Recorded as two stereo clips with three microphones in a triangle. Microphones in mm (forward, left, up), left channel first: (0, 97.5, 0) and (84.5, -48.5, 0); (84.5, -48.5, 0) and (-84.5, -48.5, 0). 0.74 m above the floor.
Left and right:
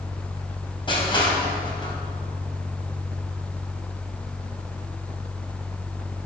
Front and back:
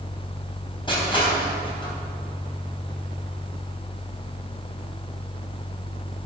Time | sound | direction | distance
0.9 | crushing | 60° left | 3.5 m